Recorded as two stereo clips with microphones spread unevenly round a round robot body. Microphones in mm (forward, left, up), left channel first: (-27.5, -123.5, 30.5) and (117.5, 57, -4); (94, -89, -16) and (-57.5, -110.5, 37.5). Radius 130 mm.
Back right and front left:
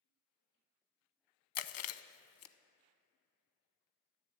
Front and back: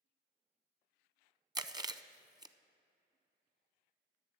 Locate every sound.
1.6 s chewing: 105° right, 0.6 m